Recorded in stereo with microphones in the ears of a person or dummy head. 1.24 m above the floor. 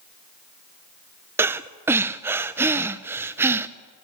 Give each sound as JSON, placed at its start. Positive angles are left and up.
{"t": 1.4, "sound": "breathing", "side_deg": -10, "distance_m": 0.7}